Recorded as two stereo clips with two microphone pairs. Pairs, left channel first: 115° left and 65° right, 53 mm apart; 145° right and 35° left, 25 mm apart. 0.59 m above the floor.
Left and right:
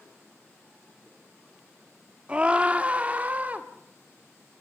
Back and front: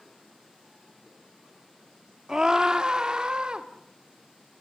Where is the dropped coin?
I don't hear a dropped coin.